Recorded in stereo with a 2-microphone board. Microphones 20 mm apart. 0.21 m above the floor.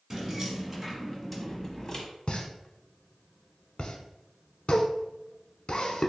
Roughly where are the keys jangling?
Centre.